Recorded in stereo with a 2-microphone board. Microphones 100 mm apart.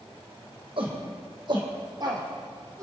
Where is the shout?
60° right (ahead or behind), 4 m; by 2.8 s 35° right (ahead or behind), 2.5 m.